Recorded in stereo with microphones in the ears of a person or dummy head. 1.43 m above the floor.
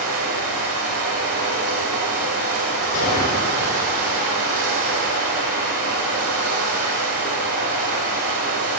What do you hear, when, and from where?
0.0 s running water: 55° right (ahead or behind), 3 m
2.9 s a gunshot: 85° left, 3.5 m